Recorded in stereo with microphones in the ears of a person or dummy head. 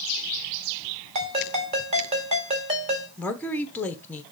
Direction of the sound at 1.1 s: 35° right (ahead or behind).